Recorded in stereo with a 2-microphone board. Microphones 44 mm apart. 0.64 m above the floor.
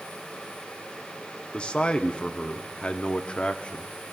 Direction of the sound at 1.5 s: 25° left (ahead or behind).